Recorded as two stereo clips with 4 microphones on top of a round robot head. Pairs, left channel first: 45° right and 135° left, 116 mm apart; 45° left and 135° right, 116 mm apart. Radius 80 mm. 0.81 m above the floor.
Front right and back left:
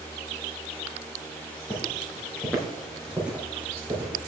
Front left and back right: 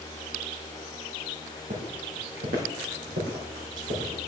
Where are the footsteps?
105° right, 2 m; by 4.2 s 155° right, 3.5 m.